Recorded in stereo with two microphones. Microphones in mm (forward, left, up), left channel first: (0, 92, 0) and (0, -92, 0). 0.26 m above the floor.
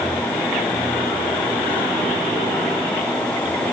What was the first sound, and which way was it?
Only background noise.